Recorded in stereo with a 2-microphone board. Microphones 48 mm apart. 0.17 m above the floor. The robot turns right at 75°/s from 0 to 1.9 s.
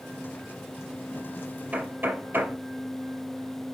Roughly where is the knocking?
Right.